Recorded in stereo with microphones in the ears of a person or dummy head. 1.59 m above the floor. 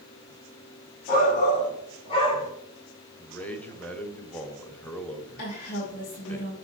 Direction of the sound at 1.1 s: 45° left (ahead or behind).